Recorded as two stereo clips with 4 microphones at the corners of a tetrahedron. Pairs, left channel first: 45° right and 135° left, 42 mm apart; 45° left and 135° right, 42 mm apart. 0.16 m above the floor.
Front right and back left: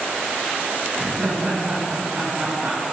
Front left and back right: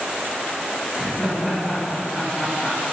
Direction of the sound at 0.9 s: 150° left.